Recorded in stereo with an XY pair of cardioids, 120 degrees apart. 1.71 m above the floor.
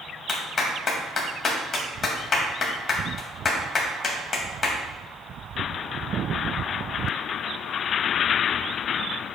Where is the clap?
45° left, 1.9 m.